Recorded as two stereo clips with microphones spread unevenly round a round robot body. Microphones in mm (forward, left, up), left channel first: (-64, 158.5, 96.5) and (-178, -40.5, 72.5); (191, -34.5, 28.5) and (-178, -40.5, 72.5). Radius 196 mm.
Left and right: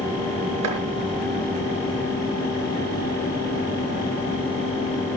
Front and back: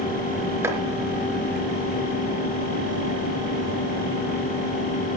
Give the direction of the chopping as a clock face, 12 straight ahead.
3 o'clock.